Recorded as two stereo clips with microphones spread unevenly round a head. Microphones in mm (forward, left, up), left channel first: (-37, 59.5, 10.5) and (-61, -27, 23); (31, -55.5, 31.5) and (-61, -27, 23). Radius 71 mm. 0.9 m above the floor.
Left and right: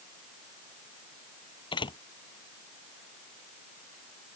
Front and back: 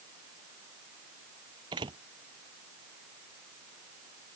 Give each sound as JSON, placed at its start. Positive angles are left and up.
{"t": 1.7, "sound": "a door slam", "azimuth_deg": 105}